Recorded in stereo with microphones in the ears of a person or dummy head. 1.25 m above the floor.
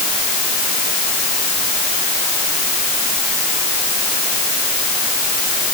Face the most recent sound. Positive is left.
No sound to turn to.